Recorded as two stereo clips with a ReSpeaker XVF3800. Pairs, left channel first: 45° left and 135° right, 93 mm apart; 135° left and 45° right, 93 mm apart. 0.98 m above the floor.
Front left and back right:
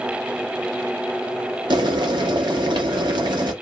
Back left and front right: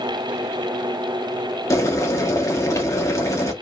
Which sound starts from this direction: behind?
Boiling, at 1.7 s.